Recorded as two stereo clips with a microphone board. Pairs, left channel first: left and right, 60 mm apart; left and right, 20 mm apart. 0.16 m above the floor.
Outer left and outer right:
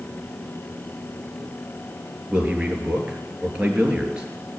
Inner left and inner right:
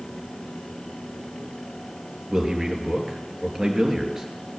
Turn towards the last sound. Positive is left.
turn(degrees=-15)  # may be behind; listen again after turning